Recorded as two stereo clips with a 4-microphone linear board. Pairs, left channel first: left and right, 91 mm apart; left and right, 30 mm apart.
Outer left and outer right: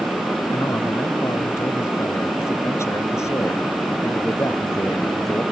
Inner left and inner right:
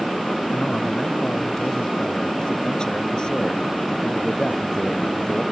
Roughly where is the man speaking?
Left.